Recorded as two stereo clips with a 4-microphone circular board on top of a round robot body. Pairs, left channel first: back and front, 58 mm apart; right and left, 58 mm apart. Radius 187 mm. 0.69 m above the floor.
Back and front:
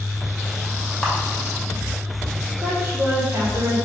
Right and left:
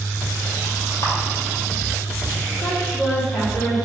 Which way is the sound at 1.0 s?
105° right.